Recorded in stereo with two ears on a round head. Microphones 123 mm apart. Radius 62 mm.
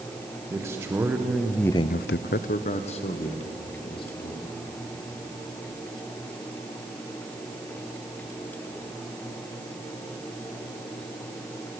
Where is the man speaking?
20° right (ahead or behind), 2.5 m; by 4.5 s 40° left (ahead or behind), 4 m.